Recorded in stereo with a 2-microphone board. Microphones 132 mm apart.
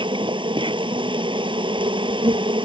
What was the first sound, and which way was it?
An insect, 40° right (ahead or behind).